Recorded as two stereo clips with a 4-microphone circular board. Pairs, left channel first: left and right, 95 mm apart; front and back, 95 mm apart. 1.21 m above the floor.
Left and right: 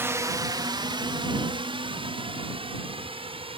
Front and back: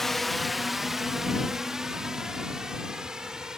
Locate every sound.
0.0 s a drone: 85° right; by 3.6 s 95° right